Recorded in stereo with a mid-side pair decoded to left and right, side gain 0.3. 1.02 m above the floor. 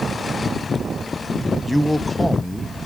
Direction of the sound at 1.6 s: 15° left.